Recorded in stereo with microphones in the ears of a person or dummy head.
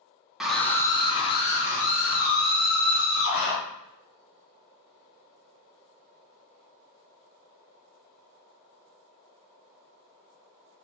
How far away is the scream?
About 0.6 m.